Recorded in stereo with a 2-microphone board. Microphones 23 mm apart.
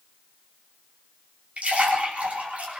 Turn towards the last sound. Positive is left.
turn(degrees=-70)  # may be behind; listen again after turning